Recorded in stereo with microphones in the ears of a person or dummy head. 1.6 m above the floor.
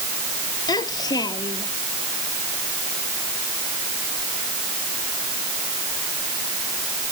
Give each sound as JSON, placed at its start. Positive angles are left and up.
{"t": 0.7, "sound": "a child speaking", "side_deg": 25}